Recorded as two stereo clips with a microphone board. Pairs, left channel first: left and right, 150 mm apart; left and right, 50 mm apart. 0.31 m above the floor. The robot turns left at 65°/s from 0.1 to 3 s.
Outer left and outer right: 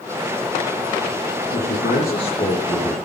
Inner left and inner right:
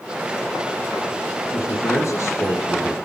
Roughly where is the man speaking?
Left.